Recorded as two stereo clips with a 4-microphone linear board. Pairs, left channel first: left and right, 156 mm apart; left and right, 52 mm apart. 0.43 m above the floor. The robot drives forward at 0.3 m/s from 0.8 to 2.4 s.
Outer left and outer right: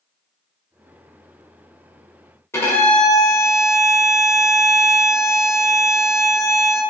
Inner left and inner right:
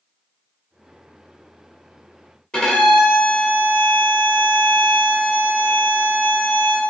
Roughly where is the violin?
Centre.